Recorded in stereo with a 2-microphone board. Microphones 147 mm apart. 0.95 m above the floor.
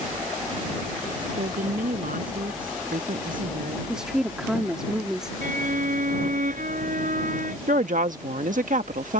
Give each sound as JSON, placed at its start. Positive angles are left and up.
{"t": 1.4, "sound": "a woman speaking", "side_deg": -75}
{"t": 3.9, "sound": "a woman speaking", "side_deg": -5}
{"t": 5.4, "sound": "a violin", "side_deg": -70}
{"t": 7.7, "sound": "a woman speaking", "side_deg": -65}